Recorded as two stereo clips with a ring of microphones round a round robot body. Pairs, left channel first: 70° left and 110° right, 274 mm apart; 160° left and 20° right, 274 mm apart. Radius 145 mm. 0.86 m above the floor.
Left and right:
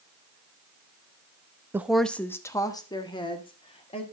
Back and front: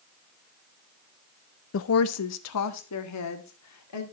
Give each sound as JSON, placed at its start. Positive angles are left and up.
{"t": 1.7, "sound": "a woman speaking", "azimuth_deg": 170, "distance_m": 0.7}